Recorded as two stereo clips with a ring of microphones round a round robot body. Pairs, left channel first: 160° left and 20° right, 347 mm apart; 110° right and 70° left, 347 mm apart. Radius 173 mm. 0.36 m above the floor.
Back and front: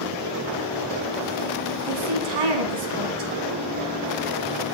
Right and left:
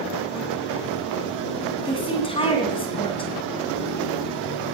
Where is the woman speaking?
40° right, 3 m.